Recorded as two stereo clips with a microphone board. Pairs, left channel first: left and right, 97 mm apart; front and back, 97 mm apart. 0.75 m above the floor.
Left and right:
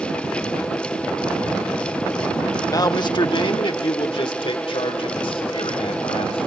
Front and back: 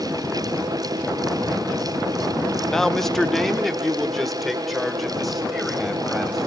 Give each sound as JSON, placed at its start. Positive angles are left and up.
{"t": 2.7, "sound": "a man speaking", "azimuth_deg": 80, "distance_m": 0.8}